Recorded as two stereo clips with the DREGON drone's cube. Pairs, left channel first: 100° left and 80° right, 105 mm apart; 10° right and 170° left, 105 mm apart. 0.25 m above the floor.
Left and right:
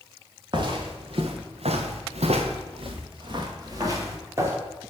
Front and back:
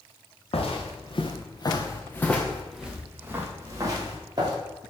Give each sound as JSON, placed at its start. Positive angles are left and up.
{"t": 0.5, "sound": "footsteps", "azimuth_deg": -35, "distance_m": 1.9}